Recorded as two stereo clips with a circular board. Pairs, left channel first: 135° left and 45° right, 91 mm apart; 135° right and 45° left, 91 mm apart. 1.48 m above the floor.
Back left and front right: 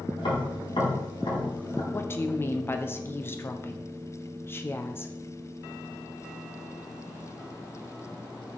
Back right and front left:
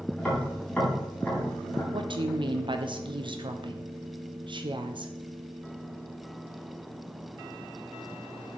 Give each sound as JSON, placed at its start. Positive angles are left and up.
{"t": 0.2, "sound": "tapping", "azimuth_deg": 145, "distance_m": 3.0}
{"t": 1.9, "sound": "a woman speaking", "azimuth_deg": 70, "distance_m": 0.7}